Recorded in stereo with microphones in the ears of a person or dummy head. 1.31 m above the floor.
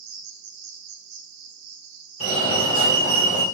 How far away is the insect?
About 0.7 m.